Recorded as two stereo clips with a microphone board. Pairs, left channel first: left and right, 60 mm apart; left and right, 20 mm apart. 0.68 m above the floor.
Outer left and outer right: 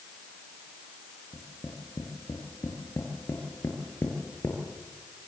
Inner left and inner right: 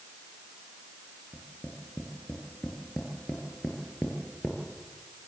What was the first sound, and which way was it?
Tapping, 50° left (ahead or behind).